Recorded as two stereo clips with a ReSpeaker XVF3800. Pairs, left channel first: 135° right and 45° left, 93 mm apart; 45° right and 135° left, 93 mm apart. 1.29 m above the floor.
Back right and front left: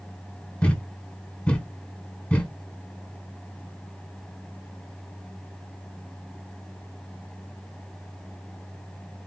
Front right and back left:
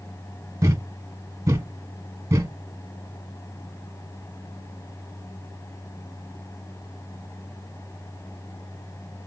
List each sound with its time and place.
0.6 s a thud: 160° left, 1.4 m